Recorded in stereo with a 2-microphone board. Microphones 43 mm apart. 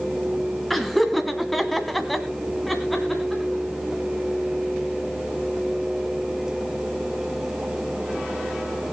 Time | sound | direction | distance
0.7 | laughter | centre (ahead or behind) | 2.5 m